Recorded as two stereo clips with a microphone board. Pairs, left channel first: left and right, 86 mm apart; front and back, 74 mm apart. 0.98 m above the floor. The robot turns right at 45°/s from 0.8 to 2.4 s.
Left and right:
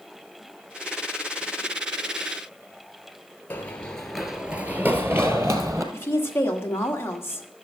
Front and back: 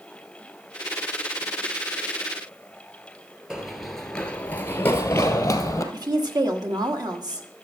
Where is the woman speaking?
150° left, 1.3 m.